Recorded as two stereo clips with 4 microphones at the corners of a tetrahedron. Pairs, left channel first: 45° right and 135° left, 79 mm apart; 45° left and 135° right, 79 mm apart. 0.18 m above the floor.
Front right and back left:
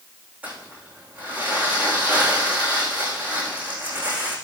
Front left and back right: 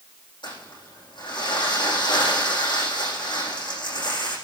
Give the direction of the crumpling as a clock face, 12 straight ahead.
10 o'clock.